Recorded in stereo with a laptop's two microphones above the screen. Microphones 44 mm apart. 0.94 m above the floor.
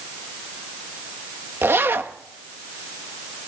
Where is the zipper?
60° right (ahead or behind), 1.3 m.